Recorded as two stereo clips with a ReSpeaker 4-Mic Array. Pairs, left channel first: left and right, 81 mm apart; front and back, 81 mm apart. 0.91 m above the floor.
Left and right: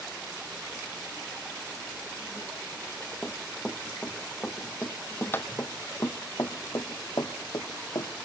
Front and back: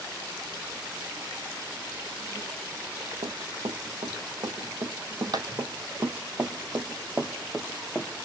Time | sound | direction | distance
3.2 | running footsteps | 170° left | 2.5 m